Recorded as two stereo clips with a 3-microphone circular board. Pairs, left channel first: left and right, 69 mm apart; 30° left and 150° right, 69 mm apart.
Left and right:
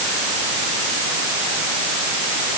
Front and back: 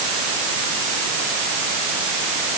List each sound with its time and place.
Only background noise.